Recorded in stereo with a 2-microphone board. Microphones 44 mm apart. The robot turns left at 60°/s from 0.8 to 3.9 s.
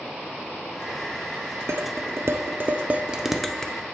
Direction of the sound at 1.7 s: 75° right (ahead or behind).